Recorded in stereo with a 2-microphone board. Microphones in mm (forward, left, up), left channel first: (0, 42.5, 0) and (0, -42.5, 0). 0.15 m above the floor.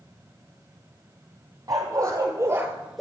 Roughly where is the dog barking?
Right.